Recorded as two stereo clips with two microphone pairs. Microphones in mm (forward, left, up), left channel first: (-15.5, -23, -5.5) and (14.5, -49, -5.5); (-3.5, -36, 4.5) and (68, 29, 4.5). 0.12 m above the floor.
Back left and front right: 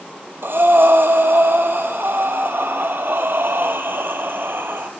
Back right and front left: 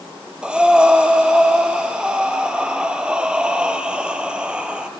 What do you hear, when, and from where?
0.4 s breathing: 35° right, 0.9 m